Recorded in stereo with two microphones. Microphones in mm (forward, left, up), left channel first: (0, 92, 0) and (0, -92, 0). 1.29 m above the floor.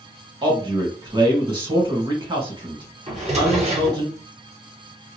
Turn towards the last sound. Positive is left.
turn(degrees=-35)  # may be behind; listen again after turning